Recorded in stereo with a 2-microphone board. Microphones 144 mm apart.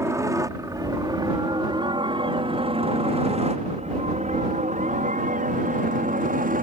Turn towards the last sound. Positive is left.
turn(degrees=-70)  # may be behind; listen again after turning